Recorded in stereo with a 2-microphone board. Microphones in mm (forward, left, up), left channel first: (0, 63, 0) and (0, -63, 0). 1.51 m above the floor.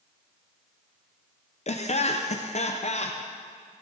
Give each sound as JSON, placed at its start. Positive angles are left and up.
{"t": 1.7, "sound": "laughter", "side_deg": 60, "distance_m": 0.5}